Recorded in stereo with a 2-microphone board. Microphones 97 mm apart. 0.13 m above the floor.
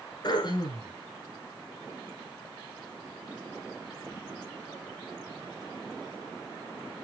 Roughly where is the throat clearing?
Left.